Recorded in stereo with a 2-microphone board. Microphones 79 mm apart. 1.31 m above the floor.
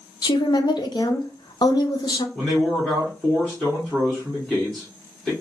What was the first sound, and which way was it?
A woman speaking, 60° left (ahead or behind).